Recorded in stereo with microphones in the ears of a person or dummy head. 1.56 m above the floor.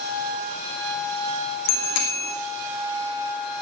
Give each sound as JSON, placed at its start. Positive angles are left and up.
{"t": 1.7, "sound": "a bicycle bell", "side_deg": 70, "distance_m": 2.5}